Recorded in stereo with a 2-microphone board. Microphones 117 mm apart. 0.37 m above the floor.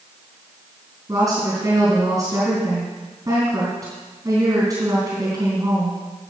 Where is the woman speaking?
25° right (ahead or behind), 4 m.